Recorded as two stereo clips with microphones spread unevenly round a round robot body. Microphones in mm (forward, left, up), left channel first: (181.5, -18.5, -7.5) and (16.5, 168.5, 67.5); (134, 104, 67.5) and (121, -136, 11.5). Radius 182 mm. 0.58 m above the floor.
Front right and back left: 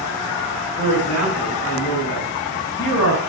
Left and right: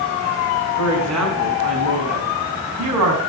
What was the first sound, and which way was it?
A man speaking, 120° right.